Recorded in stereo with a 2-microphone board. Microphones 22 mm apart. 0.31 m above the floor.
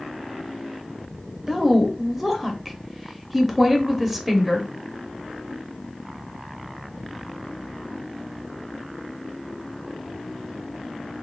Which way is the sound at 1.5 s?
10° right (ahead or behind).